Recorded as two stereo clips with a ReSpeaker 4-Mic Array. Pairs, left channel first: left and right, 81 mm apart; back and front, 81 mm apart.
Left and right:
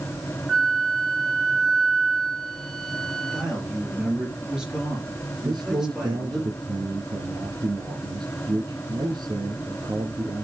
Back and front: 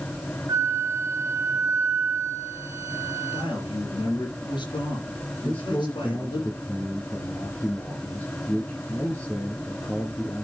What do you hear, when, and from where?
0.5 s a flute: 5° left, 0.6 m
3.3 s a man speaking: 170° right, 3.5 m
5.4 s a man speaking: 115° right, 2.5 m